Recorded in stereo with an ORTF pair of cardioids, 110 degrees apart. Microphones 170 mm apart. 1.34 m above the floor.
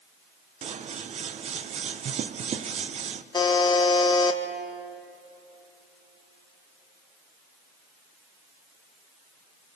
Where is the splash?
No splash in this recording.